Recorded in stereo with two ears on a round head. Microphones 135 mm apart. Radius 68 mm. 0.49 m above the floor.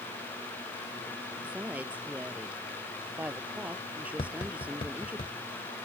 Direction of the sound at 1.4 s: 10° right (ahead or behind).